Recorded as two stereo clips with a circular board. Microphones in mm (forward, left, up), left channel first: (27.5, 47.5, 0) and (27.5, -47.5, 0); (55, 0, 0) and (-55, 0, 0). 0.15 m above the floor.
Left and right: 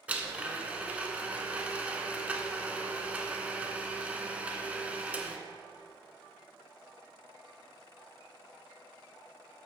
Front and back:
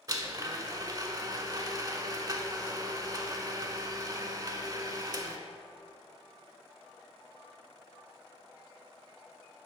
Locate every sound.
0.1 s a blender: 155° right, 0.6 m